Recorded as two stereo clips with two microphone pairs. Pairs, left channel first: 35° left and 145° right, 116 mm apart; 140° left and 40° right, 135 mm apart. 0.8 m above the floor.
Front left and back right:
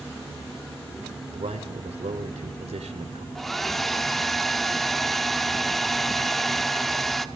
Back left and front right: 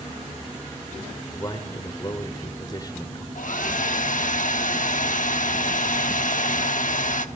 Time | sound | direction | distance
1.3 | a man speaking | 165° right | 2 m
3.4 | a hair dryer | 125° left | 1.0 m